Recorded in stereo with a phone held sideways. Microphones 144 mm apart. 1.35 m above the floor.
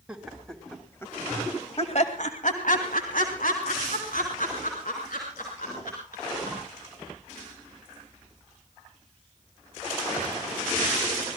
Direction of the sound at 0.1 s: 5° right (ahead or behind).